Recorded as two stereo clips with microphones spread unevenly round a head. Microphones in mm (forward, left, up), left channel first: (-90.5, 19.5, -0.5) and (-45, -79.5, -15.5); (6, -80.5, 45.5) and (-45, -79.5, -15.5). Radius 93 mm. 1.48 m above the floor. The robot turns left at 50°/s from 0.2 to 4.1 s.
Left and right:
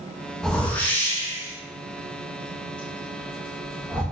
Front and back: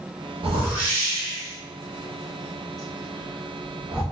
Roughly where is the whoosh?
Behind.